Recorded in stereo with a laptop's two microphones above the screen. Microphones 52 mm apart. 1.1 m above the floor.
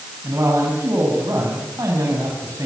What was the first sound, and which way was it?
A man speaking, 75° right (ahead or behind).